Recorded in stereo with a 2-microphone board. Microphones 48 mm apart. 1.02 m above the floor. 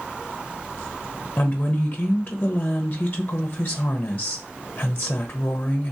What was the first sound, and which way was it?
A woman speaking, 25° left (ahead or behind).